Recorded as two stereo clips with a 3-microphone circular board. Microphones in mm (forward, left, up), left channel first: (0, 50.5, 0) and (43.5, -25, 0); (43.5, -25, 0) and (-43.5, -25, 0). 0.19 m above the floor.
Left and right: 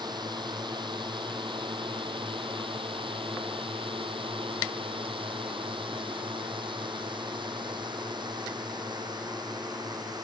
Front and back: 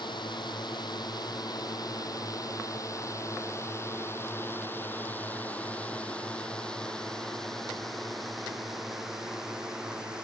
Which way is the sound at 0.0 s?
25° right.